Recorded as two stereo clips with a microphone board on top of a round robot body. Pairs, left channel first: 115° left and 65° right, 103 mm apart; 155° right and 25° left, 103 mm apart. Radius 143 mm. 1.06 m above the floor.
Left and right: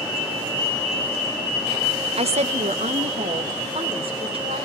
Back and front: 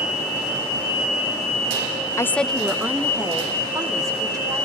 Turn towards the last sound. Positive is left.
turn(degrees=-30)